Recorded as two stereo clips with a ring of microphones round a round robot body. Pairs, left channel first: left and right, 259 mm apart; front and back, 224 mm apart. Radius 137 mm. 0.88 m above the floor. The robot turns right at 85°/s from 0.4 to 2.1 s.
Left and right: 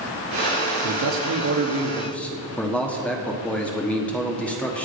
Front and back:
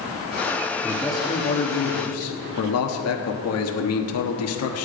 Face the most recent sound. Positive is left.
turn(degrees=5)